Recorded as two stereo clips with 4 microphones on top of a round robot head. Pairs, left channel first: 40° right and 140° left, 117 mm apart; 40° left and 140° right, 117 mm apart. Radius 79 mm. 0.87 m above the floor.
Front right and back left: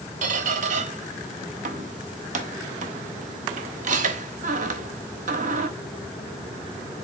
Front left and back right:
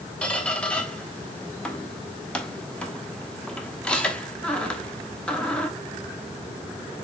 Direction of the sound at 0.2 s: 125° left.